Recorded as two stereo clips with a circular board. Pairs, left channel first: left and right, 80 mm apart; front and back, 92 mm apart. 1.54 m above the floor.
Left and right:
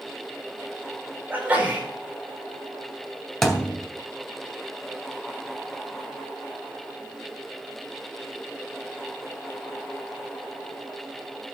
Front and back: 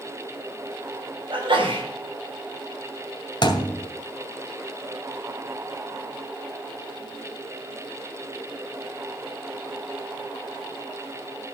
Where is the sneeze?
160° right, 5.5 m.